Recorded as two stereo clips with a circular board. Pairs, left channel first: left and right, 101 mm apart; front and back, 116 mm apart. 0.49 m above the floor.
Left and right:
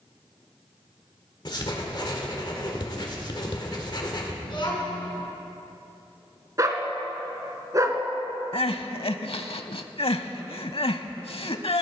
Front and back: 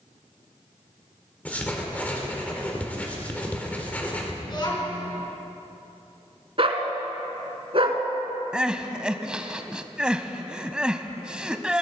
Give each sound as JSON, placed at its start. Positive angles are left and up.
{"t": 1.4, "sound": "writing", "azimuth_deg": 75, "distance_m": 1.7}
{"t": 4.4, "sound": "a child speaking", "azimuth_deg": 50, "distance_m": 4.0}
{"t": 6.6, "sound": "a dog barking", "azimuth_deg": -145, "distance_m": 1.1}
{"t": 8.5, "sound": "crying", "azimuth_deg": 100, "distance_m": 0.6}